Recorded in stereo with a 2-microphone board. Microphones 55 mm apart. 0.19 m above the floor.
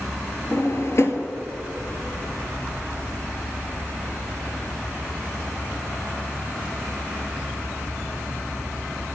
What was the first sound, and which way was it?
A drawer, 55° left (ahead or behind).